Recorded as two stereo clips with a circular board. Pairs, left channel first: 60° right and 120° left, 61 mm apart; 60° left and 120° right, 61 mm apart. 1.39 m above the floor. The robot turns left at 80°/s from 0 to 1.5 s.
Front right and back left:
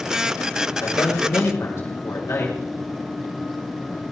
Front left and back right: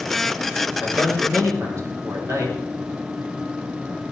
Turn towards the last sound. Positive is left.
turn(degrees=-90)